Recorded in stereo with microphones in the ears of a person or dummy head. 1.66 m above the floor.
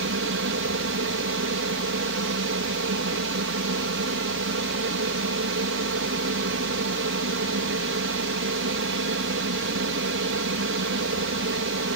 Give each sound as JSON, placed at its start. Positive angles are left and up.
{"t": 0.0, "sound": "an aircraft", "side_deg": -65}